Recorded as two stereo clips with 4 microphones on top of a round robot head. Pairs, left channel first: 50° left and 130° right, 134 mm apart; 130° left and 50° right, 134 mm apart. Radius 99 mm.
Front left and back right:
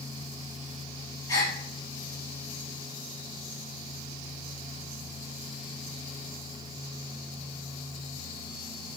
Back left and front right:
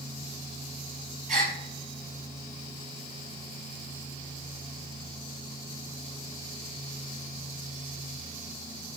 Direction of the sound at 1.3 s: 20° right.